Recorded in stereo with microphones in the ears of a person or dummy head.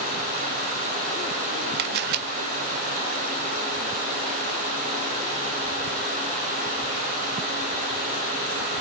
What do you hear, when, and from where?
1.8 s a camera shutter: 50° right (ahead or behind), 0.6 m